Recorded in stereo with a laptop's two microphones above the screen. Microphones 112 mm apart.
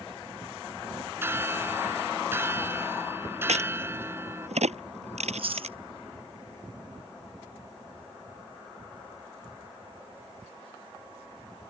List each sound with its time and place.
1.2 s a bell: 20° right (ahead or behind)
3.5 s a crack: 85° right
5.2 s chewing: 55° right (ahead or behind)